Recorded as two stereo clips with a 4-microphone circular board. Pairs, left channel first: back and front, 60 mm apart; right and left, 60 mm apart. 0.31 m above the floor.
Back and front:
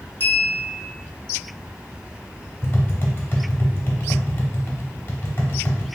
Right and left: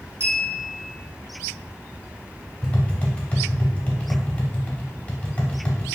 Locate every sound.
0.2 s a clink: 125° left, 1.9 m
2.6 s tapping: 150° right, 0.6 m